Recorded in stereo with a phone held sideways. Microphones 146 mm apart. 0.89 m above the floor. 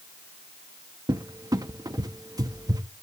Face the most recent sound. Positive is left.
turn(degrees=-25)  # may be behind; listen again after turning